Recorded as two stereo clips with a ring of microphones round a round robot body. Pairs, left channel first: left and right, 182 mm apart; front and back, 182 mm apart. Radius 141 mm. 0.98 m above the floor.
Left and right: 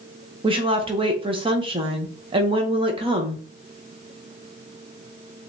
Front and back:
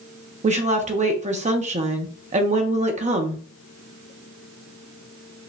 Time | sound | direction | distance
0.4 | a woman speaking | 145° right | 0.8 m